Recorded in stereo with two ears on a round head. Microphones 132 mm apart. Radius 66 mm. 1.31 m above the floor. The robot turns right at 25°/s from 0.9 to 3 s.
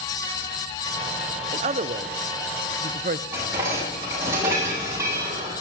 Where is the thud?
No thud in this recording.